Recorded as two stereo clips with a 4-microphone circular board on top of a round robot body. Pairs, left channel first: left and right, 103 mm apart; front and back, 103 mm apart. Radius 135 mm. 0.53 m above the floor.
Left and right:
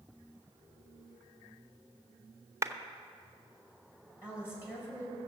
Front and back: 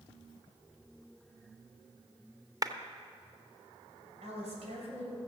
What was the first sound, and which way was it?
A clap, 140° right.